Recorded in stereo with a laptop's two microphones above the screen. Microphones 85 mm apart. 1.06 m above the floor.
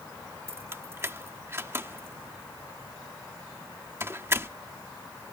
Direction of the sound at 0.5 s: 30° right (ahead or behind).